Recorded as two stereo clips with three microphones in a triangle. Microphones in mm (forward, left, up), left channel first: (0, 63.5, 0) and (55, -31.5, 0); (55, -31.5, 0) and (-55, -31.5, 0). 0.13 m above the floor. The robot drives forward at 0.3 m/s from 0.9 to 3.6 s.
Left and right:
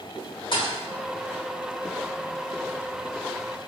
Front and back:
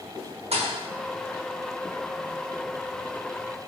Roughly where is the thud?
Behind.